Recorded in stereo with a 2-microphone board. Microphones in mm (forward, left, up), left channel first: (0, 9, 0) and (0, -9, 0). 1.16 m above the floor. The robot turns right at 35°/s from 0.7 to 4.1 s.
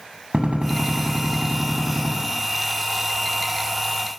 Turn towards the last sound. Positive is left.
turn(degrees=5)